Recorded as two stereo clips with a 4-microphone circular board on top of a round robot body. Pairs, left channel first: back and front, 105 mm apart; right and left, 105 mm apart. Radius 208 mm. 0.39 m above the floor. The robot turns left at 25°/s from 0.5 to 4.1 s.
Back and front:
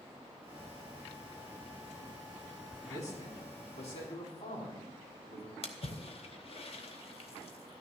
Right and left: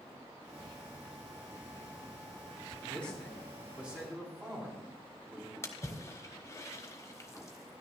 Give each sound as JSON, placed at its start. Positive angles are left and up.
{"t": 2.8, "sound": "a man speaking", "azimuth_deg": -165, "distance_m": 4.5}
{"t": 5.6, "sound": "a splash", "azimuth_deg": -155, "distance_m": 1.0}